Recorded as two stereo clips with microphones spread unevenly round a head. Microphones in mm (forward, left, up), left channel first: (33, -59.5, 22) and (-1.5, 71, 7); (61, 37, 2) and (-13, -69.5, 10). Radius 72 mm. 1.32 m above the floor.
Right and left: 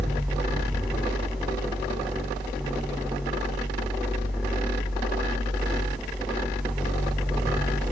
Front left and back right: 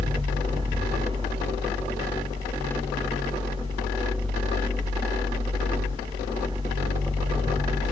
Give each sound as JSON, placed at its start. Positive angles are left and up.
{"t": 0.0, "sound": "a fan", "azimuth_deg": -165, "distance_m": 1.4}